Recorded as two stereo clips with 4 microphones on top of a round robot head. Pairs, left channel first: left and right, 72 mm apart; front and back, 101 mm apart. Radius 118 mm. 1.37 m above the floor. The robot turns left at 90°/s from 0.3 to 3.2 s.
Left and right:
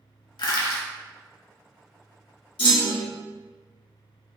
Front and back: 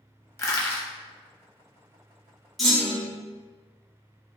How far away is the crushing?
About 0.8 m.